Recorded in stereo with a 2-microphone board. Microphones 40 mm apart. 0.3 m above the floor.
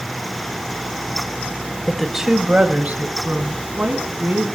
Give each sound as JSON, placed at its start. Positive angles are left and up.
{"t": 1.9, "sound": "a woman speaking", "side_deg": 5, "distance_m": 0.9}